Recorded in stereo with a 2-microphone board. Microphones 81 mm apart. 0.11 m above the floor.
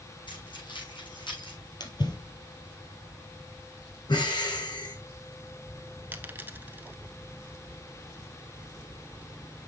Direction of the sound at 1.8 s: 60° left (ahead or behind).